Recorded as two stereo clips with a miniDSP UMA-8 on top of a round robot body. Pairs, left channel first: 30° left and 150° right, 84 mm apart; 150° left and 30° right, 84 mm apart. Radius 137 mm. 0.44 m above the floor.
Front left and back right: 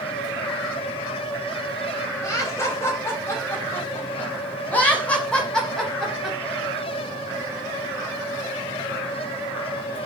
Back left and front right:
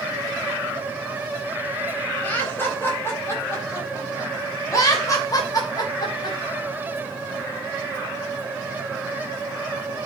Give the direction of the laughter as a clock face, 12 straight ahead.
9 o'clock.